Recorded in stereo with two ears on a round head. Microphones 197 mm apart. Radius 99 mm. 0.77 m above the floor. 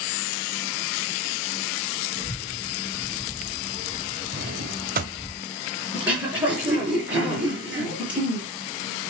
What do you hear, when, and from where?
2.1 s a child speaking: 10° right (ahead or behind), 4.5 m; by 5.3 s 5° left (ahead or behind), 6.5 m
4.3 s a drawer: 40° right (ahead or behind), 1.2 m
5.9 s throat clearing: 5° right (ahead or behind), 6 m